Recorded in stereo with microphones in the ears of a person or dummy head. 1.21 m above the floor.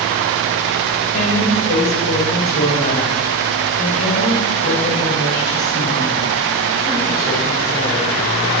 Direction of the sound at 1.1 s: 45° left (ahead or behind).